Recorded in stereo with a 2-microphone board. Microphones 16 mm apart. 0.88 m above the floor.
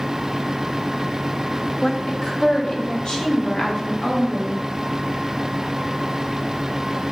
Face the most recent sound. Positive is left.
turn(degrees=60)  # may be behind; listen again after turning